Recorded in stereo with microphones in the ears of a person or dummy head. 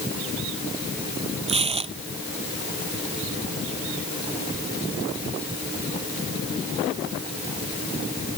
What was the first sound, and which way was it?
Tearing paper, 35° right (ahead or behind).